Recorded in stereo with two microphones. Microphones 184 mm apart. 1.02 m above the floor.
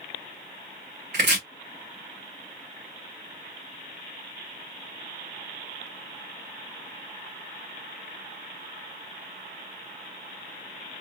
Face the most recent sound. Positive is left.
turn(degrees=-65)  # may be behind; listen again after turning